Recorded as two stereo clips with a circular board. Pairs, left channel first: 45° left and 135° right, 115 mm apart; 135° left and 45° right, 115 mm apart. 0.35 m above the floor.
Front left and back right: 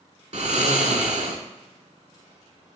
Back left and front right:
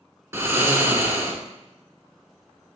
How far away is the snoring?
About 0.6 m.